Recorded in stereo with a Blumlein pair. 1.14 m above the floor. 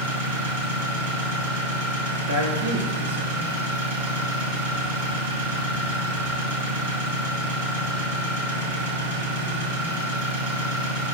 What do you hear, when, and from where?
0.0 s an engine running: 65° right, 2.5 m
2.3 s a man speaking: 70° right, 1.5 m